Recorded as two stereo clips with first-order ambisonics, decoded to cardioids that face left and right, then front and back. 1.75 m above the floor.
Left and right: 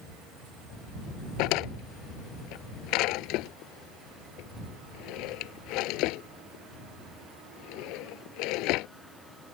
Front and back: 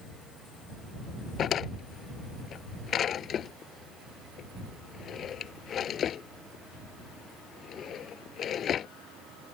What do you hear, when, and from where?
1.4 s a drawer: 60° left